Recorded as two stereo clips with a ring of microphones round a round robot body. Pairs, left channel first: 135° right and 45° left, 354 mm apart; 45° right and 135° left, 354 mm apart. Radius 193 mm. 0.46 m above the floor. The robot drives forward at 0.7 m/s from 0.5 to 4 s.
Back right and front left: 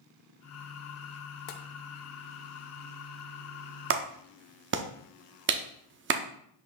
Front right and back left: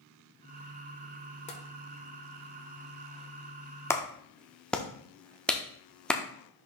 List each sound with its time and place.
1.5 s tapping: 115° right, 1.0 m; by 1.6 s 120° right, 1.0 m
3.9 s a clap: 35° left, 0.6 m; by 6.2 s 40° left, 0.6 m